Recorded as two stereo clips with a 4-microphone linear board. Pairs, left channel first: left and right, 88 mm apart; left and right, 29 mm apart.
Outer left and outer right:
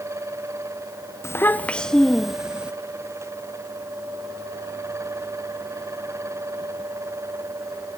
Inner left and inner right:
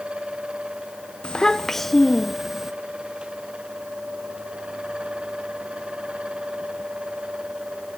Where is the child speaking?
30° left (ahead or behind), 0.7 m; by 2.7 s 10° right (ahead or behind), 1.2 m.